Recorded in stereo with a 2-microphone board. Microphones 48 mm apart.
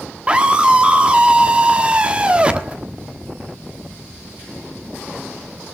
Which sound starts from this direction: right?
A scream, at 0.3 s.